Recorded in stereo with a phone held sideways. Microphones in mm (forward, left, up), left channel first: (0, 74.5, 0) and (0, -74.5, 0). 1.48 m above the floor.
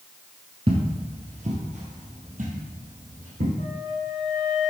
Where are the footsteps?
40° right (ahead or behind), 1.8 m; by 3.5 s 70° right (ahead or behind), 4 m.